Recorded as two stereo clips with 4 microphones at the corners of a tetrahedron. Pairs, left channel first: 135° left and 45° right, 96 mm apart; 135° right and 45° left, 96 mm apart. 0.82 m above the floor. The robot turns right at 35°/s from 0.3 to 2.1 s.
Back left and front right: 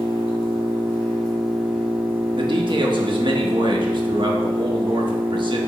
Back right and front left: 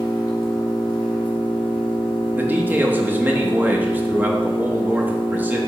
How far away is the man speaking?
About 1.1 m.